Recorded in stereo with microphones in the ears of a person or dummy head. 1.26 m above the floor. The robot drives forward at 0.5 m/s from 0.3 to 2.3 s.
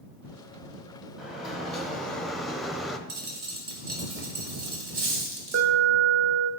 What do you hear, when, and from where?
1.2 s a sliding door: centre (ahead or behind), 1.0 m
3.1 s a dropped coin: 60° right (ahead or behind), 1.8 m
5.5 s an alarm: 50° right (ahead or behind), 0.6 m